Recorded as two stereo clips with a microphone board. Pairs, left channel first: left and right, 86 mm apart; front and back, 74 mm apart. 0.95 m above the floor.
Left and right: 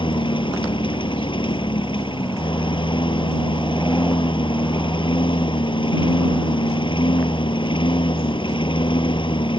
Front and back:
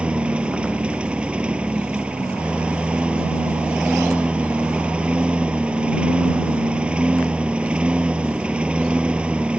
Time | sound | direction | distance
0.0 | a lawn mower | 105° left | ?